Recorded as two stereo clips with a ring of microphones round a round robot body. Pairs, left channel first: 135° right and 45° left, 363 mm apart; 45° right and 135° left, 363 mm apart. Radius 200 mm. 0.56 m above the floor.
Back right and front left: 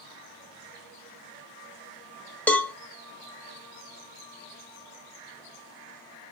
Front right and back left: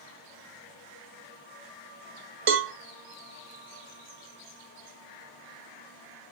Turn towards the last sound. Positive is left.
turn(degrees=140)